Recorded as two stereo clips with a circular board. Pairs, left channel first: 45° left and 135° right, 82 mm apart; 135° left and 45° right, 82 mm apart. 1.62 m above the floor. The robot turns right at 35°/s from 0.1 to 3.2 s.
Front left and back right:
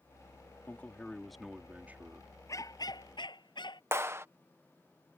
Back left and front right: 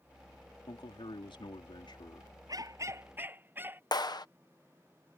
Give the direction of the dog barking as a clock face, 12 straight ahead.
12 o'clock.